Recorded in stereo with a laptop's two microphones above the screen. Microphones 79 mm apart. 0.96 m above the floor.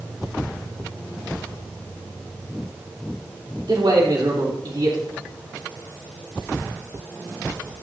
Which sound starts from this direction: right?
A man speaking, at 3.7 s.